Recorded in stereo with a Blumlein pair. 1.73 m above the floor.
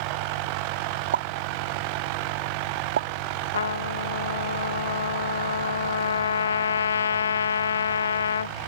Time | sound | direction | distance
1.1 | a pop | 65° right | ?
3.5 | a trumpet | 70° left | ?